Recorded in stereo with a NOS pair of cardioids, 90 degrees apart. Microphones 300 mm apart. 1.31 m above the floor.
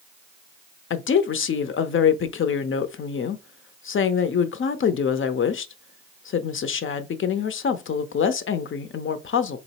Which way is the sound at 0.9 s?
40° left.